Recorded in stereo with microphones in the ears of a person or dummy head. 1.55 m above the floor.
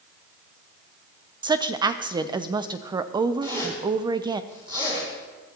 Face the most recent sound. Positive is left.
turn(degrees=-25)  # may be behind; listen again after turning